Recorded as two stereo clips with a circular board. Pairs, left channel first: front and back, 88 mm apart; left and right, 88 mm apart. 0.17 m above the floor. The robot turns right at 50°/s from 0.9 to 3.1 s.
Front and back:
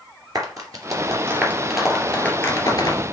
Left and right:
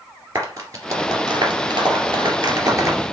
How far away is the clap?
About 2.5 m.